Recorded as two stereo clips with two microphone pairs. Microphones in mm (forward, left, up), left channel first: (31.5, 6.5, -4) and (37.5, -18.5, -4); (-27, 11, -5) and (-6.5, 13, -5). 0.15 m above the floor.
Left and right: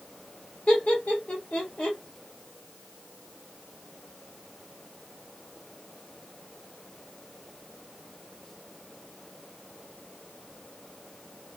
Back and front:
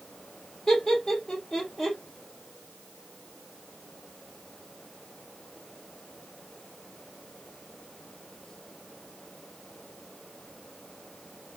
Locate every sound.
0.7 s laughter: 120° left, 3 m